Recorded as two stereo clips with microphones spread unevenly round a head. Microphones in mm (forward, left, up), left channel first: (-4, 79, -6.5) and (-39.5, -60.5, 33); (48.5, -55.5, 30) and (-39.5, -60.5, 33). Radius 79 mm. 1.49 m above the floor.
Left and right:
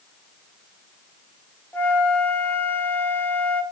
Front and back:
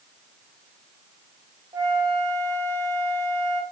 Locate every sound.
1.7 s a flute: 170° left, 0.5 m